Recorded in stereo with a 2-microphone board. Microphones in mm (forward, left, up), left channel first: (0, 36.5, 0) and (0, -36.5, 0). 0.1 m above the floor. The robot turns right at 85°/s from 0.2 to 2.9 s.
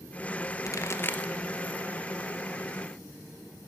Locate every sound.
0.7 s a pop: 50° left (ahead or behind), 0.7 m; by 1.3 s 10° left (ahead or behind), 0.7 m